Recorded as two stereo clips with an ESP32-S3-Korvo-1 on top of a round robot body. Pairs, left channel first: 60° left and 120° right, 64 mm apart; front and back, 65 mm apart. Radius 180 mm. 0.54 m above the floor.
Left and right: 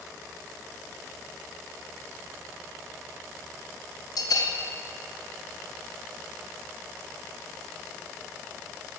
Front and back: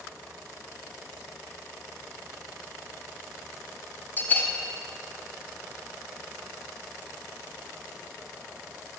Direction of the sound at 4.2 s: 60° left.